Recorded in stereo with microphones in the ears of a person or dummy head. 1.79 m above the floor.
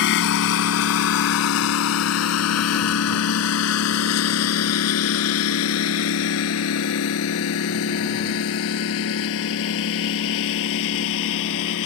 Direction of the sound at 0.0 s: 65° left (ahead or behind).